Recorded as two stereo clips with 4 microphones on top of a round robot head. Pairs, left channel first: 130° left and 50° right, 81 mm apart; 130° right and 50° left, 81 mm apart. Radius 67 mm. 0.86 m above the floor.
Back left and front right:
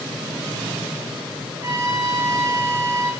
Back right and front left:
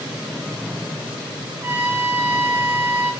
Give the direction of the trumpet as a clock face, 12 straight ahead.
12 o'clock.